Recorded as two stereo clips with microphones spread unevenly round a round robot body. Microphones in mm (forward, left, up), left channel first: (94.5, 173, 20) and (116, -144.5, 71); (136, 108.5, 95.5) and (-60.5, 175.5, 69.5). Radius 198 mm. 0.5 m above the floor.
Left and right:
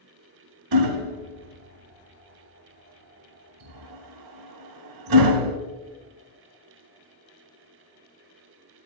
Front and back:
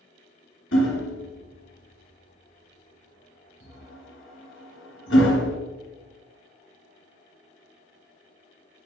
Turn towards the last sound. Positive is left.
turn(degrees=-75)